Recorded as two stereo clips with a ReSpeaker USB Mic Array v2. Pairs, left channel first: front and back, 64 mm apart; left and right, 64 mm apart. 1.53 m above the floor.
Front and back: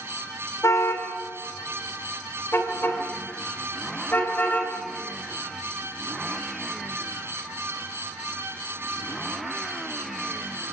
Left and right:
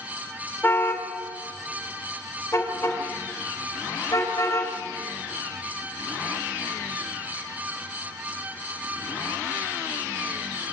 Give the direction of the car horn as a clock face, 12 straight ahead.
11 o'clock.